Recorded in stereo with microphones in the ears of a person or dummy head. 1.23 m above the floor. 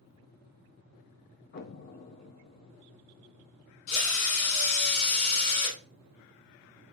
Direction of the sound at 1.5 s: 50° left (ahead or behind).